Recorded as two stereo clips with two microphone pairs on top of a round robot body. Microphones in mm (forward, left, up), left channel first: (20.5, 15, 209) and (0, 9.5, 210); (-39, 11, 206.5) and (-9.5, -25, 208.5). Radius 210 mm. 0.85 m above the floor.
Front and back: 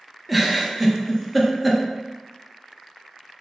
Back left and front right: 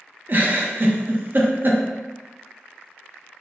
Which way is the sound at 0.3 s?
75° right.